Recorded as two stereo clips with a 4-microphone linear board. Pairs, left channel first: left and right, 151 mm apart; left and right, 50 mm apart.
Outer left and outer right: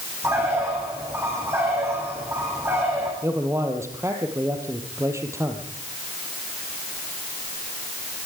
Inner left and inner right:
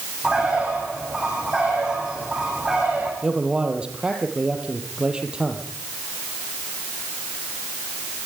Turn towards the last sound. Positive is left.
turn(degrees=-20)  # may be behind; listen again after turning